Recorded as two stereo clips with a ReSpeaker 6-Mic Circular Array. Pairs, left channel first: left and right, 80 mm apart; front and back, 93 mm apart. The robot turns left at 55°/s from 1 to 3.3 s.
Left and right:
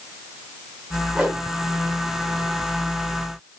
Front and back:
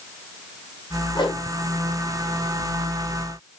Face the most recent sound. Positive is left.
turn(degrees=-130)